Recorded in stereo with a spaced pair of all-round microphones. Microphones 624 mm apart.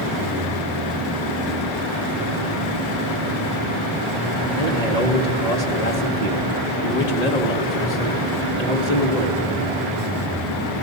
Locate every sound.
4.6 s a man speaking: 70° left (ahead or behind), 2.5 m